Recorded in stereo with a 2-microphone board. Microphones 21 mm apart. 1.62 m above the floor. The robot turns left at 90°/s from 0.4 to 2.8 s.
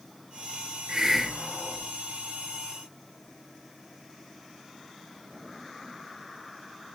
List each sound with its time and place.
0.9 s a hiss: 135° right, 0.7 m; by 1.9 s 130° left, 0.7 m